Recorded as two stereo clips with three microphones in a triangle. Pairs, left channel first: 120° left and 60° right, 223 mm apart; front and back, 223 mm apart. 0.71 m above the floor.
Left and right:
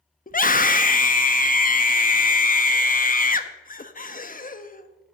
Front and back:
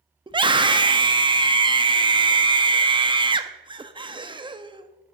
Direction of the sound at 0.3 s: 125° left.